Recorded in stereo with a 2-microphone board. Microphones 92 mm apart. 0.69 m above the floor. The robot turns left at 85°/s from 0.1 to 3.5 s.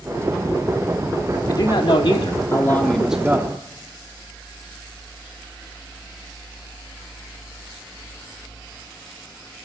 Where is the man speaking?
130° left, 1.4 m; by 3.6 s 40° right, 1.4 m.